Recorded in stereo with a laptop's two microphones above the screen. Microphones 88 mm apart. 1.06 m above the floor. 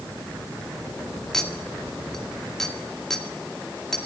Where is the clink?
5° left (ahead or behind), 1.9 m.